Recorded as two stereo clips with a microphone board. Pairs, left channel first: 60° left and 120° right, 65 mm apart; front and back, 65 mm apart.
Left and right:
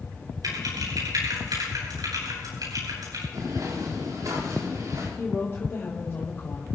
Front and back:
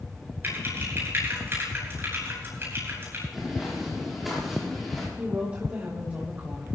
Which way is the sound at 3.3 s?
95° right.